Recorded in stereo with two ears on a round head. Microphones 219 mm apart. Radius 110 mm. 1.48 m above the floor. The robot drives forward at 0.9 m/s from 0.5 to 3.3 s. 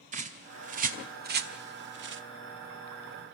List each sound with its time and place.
0.1 s a bird: 35° right (ahead or behind), 2.5 m; by 2.2 s 50° right (ahead or behind), 1.6 m